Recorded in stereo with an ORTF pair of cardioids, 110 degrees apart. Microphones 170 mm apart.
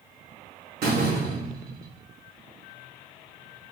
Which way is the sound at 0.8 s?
65° right.